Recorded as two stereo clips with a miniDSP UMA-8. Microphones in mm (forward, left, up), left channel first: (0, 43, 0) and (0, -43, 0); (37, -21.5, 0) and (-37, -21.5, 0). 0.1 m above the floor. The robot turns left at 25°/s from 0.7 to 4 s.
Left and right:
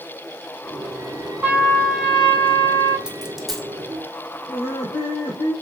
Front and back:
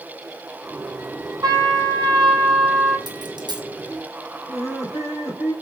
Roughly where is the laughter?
Left.